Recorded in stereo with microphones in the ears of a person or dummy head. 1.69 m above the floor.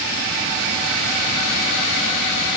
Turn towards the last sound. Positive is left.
No sound to turn to.